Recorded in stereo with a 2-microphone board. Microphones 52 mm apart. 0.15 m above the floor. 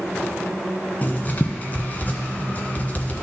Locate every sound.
1.0 s writing: 35° left (ahead or behind), 1.0 m